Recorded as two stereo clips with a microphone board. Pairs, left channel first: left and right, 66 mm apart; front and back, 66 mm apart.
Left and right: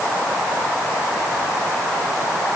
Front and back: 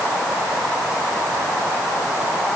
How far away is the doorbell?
No doorbell in this recording.